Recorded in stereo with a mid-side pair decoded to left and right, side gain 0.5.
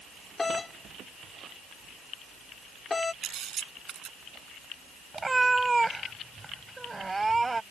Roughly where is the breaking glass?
No breaking glass in this recording.